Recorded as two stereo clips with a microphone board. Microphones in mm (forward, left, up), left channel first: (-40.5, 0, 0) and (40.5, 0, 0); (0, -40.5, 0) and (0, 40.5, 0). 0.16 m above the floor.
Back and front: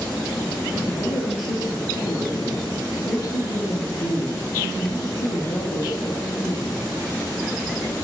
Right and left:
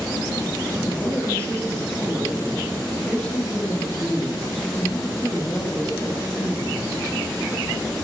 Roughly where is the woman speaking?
Behind.